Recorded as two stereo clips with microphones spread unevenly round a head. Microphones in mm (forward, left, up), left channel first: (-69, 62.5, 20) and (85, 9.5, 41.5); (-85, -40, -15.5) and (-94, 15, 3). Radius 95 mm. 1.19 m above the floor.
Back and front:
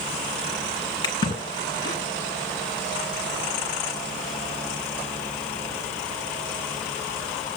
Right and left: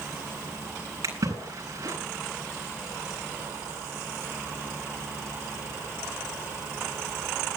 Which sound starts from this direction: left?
A splash, at 1.0 s.